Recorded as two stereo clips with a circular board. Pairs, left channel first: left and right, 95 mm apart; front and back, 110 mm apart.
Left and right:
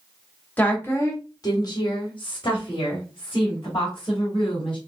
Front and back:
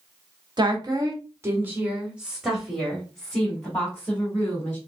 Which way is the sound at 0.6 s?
155° left.